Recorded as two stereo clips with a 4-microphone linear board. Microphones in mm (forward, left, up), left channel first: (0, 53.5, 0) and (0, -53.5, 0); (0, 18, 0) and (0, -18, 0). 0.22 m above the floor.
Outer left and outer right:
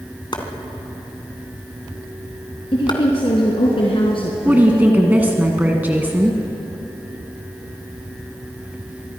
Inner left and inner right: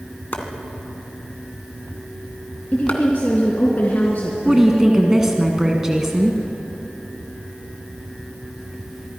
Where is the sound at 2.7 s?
55° left (ahead or behind), 3 m.